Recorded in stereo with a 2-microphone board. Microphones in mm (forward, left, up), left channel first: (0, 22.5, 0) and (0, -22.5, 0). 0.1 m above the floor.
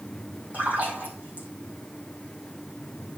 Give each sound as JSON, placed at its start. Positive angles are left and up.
{"t": 0.5, "sound": "a splash", "side_deg": -35, "distance_m": 5.5}